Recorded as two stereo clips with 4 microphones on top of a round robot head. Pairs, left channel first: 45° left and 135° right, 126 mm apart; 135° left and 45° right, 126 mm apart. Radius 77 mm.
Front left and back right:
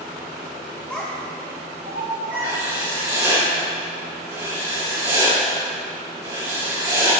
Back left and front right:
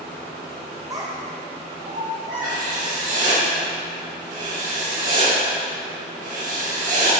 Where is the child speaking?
20° right, 0.7 m; by 3.4 s 105° right, 2.5 m.